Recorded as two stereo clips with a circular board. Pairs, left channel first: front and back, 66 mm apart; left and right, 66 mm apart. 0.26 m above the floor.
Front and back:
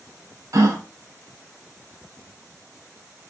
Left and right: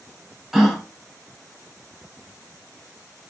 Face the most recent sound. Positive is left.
turn(degrees=-175)